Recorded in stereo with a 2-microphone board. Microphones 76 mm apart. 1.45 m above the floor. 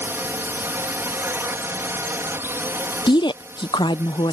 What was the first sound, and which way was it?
A drone, 25° right (ahead or behind).